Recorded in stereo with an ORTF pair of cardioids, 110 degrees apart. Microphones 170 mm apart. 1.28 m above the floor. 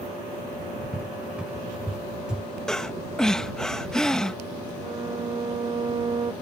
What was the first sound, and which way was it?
A cupboard door, 5° right.